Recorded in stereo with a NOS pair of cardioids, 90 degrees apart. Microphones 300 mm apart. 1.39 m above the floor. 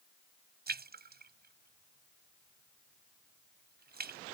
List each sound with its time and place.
0.7 s a splash: 30° right